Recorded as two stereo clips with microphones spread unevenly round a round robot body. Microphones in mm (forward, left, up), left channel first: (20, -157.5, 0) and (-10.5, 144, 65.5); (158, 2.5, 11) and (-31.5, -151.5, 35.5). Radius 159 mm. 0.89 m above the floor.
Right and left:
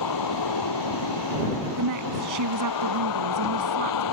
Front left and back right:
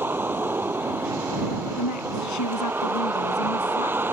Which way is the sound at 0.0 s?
60° right.